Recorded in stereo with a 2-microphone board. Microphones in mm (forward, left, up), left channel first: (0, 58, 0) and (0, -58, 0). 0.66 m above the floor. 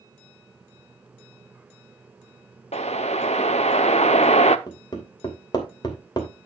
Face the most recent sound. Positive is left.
turn(degrees=40)  # may be behind; listen again after turning